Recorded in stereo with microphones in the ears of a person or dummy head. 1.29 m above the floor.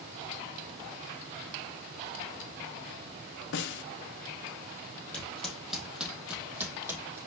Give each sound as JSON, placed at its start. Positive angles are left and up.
{"t": 3.5, "sound": "a snare drum", "side_deg": 60, "distance_m": 0.7}
{"t": 5.1, "sound": "footsteps", "side_deg": 5, "distance_m": 2.5}